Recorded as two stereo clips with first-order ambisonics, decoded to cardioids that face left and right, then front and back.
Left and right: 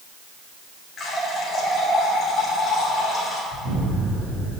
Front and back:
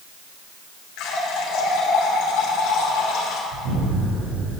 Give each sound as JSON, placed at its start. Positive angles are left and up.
{"t": 1.0, "sound": "a running tap", "azimuth_deg": 25, "distance_m": 3.0}
{"t": 3.5, "sound": "an explosion", "azimuth_deg": -150, "distance_m": 4.5}